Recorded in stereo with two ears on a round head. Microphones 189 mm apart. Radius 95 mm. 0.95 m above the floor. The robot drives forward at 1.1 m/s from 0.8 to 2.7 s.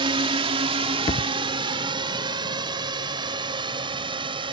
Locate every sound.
0.0 s a drone: 25° right (ahead or behind)
1.1 s a thud: 30° left (ahead or behind); by 1.3 s 25° left (ahead or behind)